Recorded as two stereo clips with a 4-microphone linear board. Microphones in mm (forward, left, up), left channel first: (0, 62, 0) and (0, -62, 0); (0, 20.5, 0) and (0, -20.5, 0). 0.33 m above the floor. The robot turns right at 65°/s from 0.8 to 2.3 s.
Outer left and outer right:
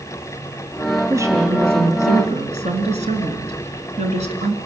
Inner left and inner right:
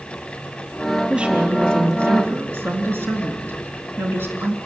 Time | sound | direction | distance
1.1 | a woman speaking | 160° right | 3.5 m